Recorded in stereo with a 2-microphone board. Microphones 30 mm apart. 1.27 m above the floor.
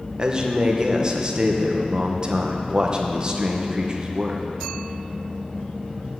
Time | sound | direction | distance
0.2 | a man speaking | 25° right (ahead or behind) | 1.1 m